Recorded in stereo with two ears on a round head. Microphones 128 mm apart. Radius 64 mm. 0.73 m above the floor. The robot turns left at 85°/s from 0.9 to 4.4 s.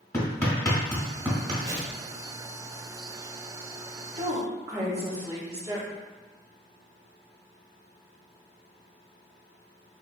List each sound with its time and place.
0.1 s hammering: 20° left (ahead or behind), 1.5 m; by 1.5 s 35° right (ahead or behind), 1.5 m
1.6 s a whoosh: 135° right, 0.8 m; by 2.0 s 165° right, 0.8 m
4.2 s a woman speaking: 40° right (ahead or behind), 1.3 m; by 5.9 s 25° right (ahead or behind), 1.3 m